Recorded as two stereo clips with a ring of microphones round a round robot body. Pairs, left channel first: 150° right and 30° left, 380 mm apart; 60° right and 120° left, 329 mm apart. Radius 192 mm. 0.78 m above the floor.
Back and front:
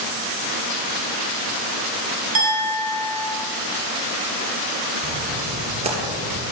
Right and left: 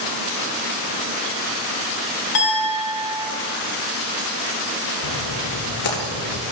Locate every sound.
2.4 s a clink: 30° right, 3.5 m
5.0 s a splash: 45° right, 2.5 m